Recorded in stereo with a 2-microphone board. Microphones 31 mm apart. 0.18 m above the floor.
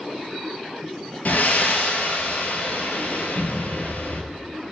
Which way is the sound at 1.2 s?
70° left (ahead or behind).